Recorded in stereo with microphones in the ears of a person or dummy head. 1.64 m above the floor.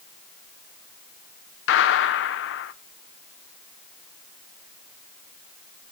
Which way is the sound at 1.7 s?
70° left (ahead or behind).